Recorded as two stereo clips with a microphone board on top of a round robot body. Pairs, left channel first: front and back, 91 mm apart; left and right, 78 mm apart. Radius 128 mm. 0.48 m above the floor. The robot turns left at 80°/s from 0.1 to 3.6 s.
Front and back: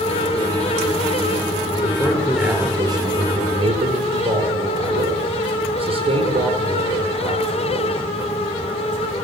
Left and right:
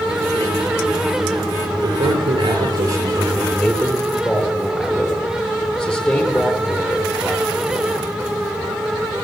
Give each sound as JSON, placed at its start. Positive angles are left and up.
{"t": 1.8, "sound": "a man speaking", "azimuth_deg": -45, "distance_m": 9.5}